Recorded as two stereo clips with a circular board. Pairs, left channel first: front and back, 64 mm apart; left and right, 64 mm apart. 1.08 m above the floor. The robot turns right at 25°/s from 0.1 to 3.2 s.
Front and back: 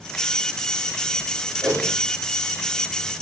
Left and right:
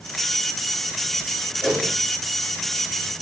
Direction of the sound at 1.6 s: 175° right.